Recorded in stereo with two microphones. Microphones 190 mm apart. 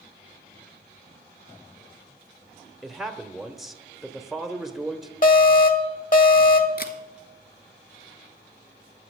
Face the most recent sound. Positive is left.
turn(degrees=55)  # may be behind; listen again after turning